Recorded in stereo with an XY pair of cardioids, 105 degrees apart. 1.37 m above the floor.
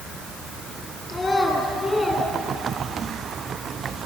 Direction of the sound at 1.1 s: 30° left.